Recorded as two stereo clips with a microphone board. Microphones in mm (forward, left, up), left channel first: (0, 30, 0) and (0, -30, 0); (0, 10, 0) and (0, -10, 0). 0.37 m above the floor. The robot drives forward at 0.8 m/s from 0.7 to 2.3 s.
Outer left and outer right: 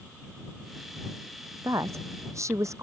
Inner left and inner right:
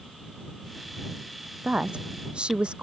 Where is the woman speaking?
60° right (ahead or behind).